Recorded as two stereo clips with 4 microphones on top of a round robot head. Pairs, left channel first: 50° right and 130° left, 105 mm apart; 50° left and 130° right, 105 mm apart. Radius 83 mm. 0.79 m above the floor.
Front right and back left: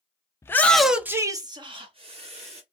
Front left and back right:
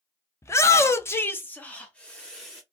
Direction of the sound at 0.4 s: Straight ahead.